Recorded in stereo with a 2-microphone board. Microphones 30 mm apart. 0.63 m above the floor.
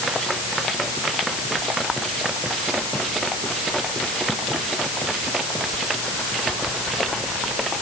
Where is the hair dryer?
I don't hear a hair dryer.